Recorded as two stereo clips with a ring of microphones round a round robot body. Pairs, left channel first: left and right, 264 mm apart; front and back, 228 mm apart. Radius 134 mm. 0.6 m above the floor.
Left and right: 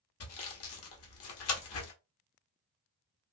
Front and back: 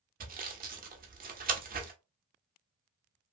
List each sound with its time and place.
0.2 s sawing: 125° left, 0.9 m